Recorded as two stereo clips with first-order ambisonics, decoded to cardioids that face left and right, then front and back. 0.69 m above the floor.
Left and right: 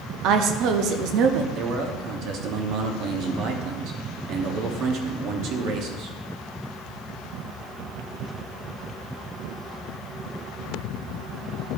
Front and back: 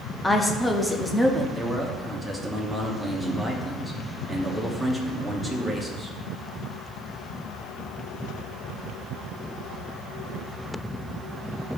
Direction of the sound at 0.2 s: 85° right.